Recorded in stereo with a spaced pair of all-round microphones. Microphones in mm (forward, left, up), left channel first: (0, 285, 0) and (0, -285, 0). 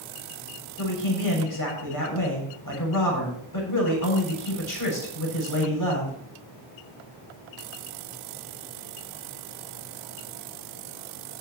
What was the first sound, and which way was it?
A man speaking, 35° left (ahead or behind).